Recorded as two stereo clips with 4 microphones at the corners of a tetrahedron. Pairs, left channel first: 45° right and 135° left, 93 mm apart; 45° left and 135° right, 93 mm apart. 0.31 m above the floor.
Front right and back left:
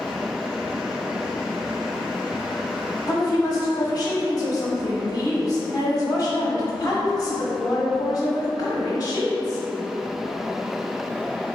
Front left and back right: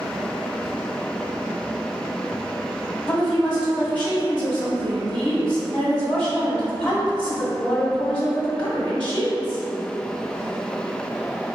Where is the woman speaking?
40° right, 1.2 m.